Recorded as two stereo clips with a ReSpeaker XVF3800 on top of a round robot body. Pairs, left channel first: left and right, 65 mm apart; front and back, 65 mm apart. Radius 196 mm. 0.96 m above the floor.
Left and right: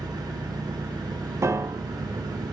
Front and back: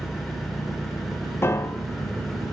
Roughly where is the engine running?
Right.